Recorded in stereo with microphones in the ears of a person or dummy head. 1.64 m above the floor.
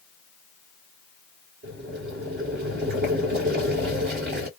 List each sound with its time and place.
1.6 s boiling: 50° right (ahead or behind), 1.9 m